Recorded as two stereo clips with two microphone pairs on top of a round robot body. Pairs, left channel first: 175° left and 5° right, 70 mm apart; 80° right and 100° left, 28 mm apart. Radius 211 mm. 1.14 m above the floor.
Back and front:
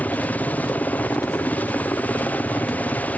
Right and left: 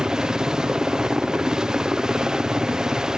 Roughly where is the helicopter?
Behind left.